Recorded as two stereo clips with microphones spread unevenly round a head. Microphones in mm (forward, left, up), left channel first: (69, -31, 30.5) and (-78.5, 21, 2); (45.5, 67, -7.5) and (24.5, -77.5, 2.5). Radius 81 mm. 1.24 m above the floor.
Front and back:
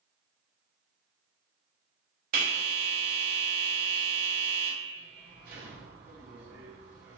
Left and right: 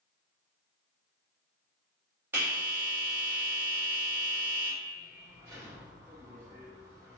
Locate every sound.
2.3 s a bell: 175° right, 0.9 m